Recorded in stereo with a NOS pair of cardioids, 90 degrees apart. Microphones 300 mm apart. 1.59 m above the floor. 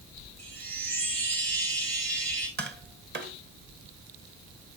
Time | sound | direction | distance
0.4 | a chime | 60° right | 4 m
2.6 | tapping | 35° right | 1.9 m